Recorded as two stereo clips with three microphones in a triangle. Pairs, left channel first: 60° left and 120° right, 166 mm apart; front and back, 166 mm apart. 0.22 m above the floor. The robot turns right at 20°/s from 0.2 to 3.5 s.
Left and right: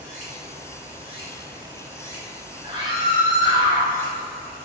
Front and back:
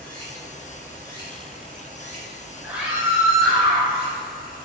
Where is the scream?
105° right, 1.3 m; by 3.9 s 90° right, 1.3 m.